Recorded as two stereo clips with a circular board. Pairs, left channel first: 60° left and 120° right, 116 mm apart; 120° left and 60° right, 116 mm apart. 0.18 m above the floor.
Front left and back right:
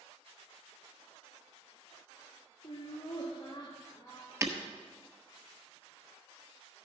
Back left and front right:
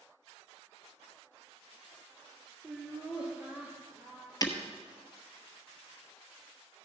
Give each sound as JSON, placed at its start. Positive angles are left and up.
{"t": 2.6, "sound": "laughter", "azimuth_deg": 25, "distance_m": 3.5}
{"t": 4.4, "sound": "breaking glass", "azimuth_deg": 175, "distance_m": 1.2}